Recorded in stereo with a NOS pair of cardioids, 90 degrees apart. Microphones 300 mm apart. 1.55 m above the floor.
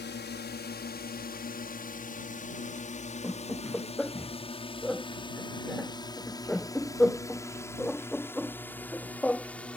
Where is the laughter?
5° left.